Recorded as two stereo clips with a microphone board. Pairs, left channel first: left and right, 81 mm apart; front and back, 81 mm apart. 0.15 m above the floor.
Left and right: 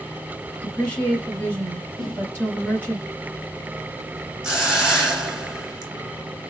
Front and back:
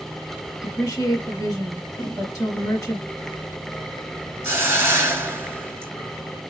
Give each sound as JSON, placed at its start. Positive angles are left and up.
{"t": 0.6, "sound": "a woman speaking", "azimuth_deg": 20, "distance_m": 1.9}
{"t": 2.0, "sound": "a whoosh", "azimuth_deg": -5, "distance_m": 1.9}
{"t": 4.4, "sound": "a hiss", "azimuth_deg": -170, "distance_m": 1.6}